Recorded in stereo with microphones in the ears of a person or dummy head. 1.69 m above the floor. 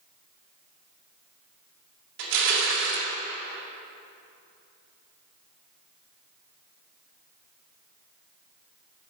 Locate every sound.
2.2 s crushing: 65° right (ahead or behind), 2 m